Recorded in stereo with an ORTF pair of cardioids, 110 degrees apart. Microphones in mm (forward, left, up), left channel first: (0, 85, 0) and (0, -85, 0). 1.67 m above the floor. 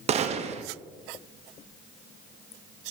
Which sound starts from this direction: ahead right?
A gunshot, at 0.1 s.